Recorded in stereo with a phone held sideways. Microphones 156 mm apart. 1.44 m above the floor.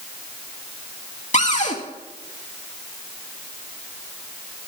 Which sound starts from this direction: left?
A cupboard door, at 1.3 s.